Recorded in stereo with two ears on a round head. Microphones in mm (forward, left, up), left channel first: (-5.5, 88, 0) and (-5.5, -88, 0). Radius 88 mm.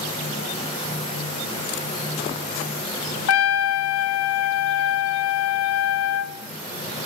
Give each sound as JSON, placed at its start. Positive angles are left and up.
{"t": 3.3, "sound": "a trumpet", "side_deg": 85, "distance_m": 0.6}